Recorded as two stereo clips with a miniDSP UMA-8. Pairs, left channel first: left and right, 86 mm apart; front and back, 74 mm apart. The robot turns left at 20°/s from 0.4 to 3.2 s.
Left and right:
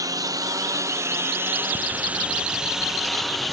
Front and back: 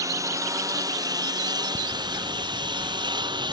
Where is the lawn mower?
140° right; by 3.5 s straight behind.